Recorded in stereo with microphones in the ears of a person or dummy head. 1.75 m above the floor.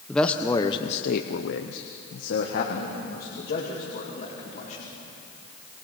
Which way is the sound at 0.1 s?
10° left (ahead or behind).